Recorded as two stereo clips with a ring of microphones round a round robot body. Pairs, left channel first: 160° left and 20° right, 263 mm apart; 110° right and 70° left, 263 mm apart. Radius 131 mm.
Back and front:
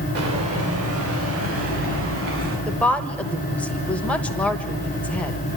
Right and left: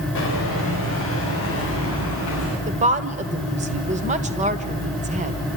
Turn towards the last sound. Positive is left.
turn(degrees=80)